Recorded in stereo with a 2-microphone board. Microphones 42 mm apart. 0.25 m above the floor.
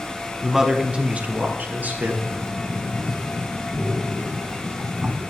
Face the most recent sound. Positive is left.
turn(degrees=-55)  # may be behind; listen again after turning